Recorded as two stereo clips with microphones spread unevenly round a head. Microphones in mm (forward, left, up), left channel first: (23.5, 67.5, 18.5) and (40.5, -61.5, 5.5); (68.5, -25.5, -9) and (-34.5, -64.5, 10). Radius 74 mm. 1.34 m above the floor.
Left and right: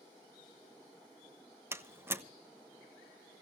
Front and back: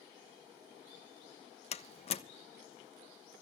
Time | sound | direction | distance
1.7 | a door slam | 10° right | 1.2 m